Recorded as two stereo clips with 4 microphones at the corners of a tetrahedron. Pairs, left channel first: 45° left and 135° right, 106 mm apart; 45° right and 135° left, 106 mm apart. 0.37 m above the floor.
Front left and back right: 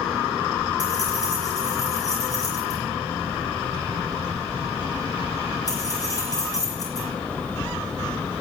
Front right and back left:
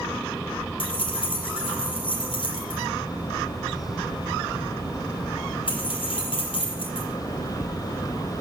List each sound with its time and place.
0.8 s keys jangling: 10° right, 5.5 m